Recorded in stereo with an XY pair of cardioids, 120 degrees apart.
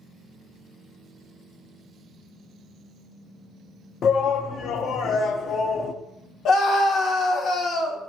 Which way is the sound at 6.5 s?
60° left.